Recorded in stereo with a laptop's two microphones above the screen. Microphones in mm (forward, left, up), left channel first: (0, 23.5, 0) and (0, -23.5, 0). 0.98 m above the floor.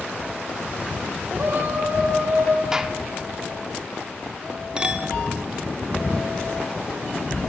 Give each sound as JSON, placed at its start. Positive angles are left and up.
{"t": 1.3, "sound": "a shout", "side_deg": -45, "distance_m": 3.0}
{"t": 2.7, "sound": "a gunshot", "side_deg": -10, "distance_m": 0.6}
{"t": 4.8, "sound": "a clink", "side_deg": -20, "distance_m": 1.2}